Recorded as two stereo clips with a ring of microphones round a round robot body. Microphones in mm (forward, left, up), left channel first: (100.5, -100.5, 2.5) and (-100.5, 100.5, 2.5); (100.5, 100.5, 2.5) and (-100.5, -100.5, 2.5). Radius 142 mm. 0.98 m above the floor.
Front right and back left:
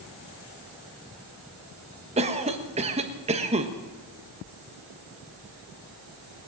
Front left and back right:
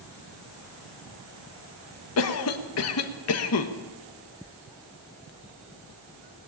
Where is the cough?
70° left, 1.3 m.